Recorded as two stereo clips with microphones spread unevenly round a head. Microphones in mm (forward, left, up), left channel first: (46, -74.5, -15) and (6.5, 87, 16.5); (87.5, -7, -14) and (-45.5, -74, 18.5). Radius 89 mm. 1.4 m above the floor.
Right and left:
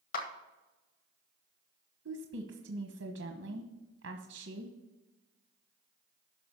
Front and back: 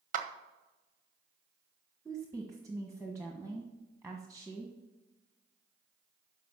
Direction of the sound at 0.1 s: 120° right.